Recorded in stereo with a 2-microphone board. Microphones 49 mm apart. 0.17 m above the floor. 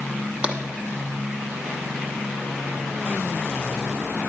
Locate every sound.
0.4 s tapping: 20° right (ahead or behind), 1.2 m